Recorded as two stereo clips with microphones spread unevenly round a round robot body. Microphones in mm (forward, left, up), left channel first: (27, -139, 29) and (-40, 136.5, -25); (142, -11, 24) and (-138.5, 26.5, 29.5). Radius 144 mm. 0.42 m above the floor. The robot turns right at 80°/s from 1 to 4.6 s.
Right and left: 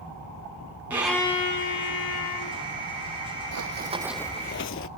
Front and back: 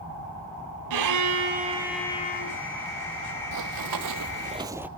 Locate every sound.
0.9 s a violin: 175° right, 2.5 m; by 2.6 s 50° right, 2.5 m
3.5 s running footsteps: 140° left, 1.2 m; by 4.9 s 105° right, 0.7 m